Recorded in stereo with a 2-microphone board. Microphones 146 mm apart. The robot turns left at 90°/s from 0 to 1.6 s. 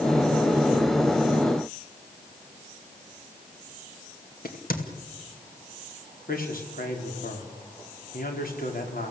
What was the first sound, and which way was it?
A crack, 85° left.